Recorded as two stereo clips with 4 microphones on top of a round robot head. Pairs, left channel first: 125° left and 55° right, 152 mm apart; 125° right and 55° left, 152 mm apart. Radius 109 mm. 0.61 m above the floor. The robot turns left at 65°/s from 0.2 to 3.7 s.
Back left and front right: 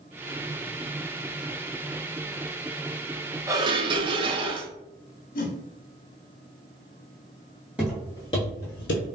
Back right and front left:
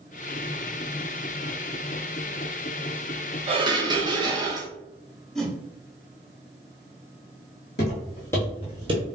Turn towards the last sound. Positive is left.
turn(degrees=110)